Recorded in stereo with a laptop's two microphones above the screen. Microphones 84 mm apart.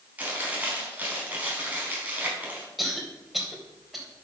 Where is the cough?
Centre (ahead or behind), 4 m.